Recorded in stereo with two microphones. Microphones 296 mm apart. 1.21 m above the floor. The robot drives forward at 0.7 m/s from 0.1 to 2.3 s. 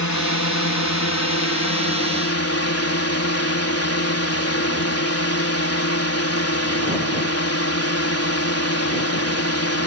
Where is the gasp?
I don't hear a gasp.